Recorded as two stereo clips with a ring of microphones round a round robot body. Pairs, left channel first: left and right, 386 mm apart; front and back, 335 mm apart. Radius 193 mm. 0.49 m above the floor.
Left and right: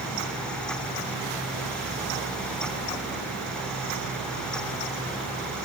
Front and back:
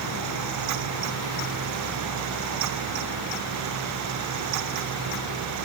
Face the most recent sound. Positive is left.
No sound to turn to.